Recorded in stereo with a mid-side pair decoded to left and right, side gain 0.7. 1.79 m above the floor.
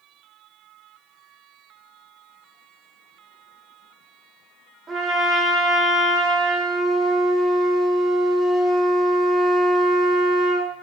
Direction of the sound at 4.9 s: 30° right.